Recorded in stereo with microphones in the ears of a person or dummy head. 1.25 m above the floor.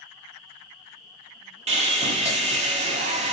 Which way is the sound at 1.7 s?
35° right (ahead or behind).